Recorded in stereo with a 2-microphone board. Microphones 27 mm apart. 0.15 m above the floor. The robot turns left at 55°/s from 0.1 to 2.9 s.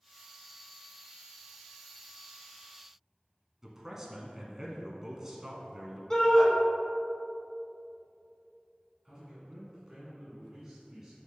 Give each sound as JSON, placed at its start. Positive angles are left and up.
{"t": 3.6, "sound": "a man speaking", "side_deg": -15, "distance_m": 1.1}
{"t": 6.1, "sound": "a shout", "side_deg": 20, "distance_m": 1.2}
{"t": 9.1, "sound": "a man speaking", "side_deg": -20, "distance_m": 1.8}